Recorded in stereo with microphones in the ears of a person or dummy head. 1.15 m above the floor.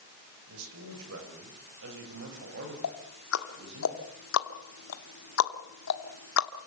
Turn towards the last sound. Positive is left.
turn(degrees=80)